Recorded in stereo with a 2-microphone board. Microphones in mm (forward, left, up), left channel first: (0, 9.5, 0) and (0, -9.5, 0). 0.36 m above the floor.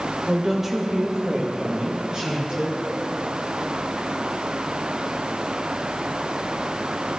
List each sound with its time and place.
0.3 s a woman speaking: centre (ahead or behind), 0.8 m; by 2.8 s 55° right (ahead or behind), 2 m